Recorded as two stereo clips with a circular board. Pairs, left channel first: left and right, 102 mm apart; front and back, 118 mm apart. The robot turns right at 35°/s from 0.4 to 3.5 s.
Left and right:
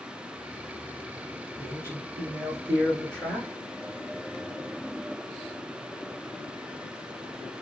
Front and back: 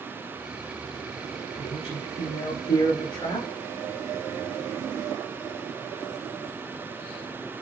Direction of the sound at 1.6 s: 40° right.